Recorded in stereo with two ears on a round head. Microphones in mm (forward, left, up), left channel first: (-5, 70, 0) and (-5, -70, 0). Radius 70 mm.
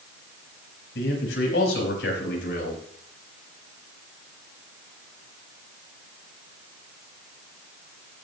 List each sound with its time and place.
0.9 s a man speaking: 90° left, 5 m; by 2.8 s 75° left (ahead or behind), 4.5 m